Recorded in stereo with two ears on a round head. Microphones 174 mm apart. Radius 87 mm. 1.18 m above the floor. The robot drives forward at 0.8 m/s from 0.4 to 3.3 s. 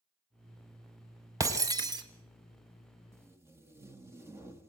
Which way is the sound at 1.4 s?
20° right (ahead or behind).